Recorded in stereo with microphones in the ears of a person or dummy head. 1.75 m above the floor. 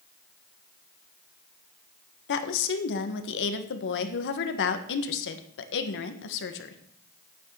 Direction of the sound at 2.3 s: 60° left (ahead or behind).